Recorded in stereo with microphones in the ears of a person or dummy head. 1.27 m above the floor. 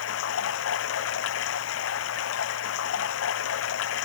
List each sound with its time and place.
0.0 s running water: 75° left (ahead or behind)